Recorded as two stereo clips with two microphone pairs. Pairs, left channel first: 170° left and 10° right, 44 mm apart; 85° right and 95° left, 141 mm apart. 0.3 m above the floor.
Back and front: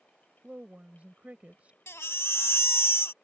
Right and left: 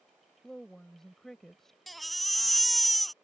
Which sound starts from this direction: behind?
A baby crying, at 1.9 s.